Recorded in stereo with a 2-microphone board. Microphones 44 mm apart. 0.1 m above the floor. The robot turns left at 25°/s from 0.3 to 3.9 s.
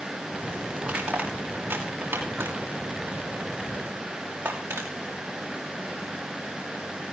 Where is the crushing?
25° right (ahead or behind), 5 m; by 4.9 s 80° right, 5 m.